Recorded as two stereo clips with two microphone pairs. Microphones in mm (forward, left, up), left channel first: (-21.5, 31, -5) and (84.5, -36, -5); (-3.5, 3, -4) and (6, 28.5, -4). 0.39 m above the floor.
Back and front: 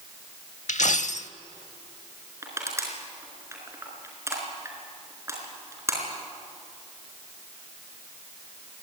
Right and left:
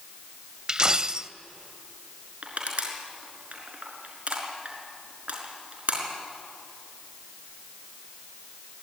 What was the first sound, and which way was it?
A dropped coin, 130° left.